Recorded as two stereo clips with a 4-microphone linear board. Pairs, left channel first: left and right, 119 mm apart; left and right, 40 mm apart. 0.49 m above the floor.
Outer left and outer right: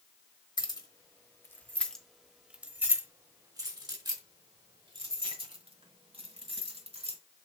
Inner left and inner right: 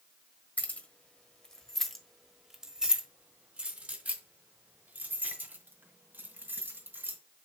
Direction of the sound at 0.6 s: 40° left (ahead or behind).